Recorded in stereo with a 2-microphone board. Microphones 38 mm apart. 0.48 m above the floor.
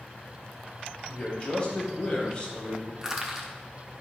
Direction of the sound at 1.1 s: 25° left (ahead or behind).